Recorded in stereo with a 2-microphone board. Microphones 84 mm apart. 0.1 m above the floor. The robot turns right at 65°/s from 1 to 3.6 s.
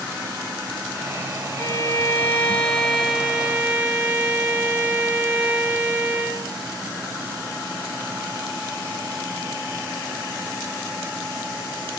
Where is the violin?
25° left (ahead or behind), 1.3 m; by 6.5 s 15° right (ahead or behind), 1.3 m.